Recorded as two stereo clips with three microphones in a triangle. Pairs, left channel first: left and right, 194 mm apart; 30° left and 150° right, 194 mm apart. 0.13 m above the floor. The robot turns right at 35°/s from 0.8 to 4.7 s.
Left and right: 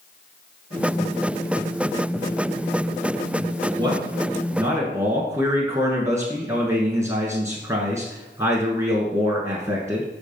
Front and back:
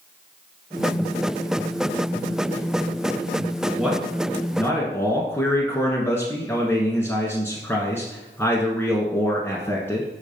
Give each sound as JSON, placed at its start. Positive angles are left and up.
{"t": 3.8, "sound": "a man speaking", "azimuth_deg": -65, "distance_m": 1.3}